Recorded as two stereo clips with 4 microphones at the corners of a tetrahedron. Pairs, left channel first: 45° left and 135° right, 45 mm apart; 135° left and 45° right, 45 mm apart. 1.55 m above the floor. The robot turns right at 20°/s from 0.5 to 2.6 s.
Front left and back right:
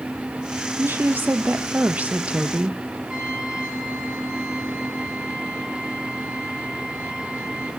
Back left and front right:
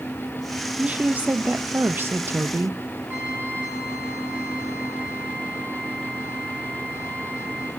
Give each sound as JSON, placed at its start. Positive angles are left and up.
{"t": 0.8, "sound": "a woman speaking", "azimuth_deg": -105, "distance_m": 0.8}
{"t": 3.1, "sound": "a trumpet", "azimuth_deg": -65, "distance_m": 9.0}